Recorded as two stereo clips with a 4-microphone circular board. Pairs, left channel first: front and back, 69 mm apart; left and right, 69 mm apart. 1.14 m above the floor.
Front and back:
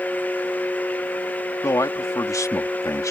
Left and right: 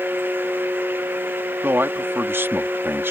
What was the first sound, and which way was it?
A man speaking, 35° right.